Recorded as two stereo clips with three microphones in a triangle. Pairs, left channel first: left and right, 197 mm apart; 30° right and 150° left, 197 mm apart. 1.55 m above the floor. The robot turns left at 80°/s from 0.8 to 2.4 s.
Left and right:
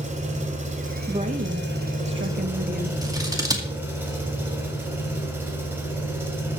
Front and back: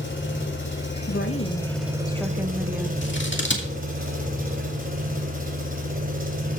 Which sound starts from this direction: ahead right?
An engine running, at 0.0 s.